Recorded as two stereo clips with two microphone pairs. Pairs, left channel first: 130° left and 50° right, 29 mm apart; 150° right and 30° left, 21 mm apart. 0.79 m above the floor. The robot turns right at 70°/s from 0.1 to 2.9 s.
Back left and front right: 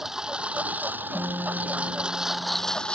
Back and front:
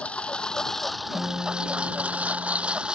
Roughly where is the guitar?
Right.